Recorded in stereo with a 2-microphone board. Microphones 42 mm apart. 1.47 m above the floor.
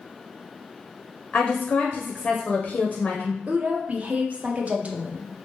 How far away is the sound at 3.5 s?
About 0.6 m.